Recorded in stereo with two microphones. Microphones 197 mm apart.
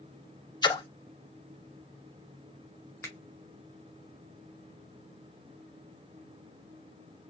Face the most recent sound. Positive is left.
turn(degrees=15)  # may be behind; listen again after turning